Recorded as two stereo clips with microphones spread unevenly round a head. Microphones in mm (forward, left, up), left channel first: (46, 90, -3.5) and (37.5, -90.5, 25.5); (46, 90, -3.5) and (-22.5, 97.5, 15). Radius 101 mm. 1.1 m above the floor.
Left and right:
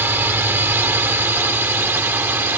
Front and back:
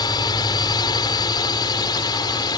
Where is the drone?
15° right.